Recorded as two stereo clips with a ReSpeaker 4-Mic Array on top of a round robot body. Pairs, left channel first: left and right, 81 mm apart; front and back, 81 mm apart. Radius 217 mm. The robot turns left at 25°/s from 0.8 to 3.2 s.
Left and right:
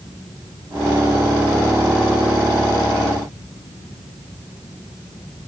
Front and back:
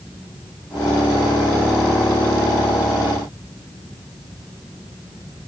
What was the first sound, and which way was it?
Only background noise.